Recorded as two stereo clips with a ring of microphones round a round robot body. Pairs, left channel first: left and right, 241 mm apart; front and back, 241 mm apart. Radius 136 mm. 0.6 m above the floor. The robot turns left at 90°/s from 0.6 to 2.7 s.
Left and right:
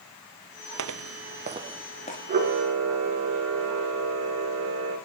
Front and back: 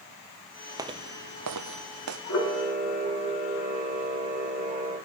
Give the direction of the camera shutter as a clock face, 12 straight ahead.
1 o'clock.